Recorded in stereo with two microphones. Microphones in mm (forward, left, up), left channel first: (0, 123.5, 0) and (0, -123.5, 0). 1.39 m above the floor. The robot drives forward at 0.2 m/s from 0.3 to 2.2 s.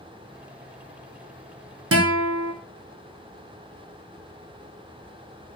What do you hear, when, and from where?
1.9 s a guitar: 70° right (ahead or behind), 0.6 m; by 2.5 s 60° right (ahead or behind), 0.6 m